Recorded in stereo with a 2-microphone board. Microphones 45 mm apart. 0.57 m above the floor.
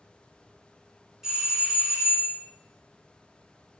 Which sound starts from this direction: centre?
A doorbell, at 1.2 s.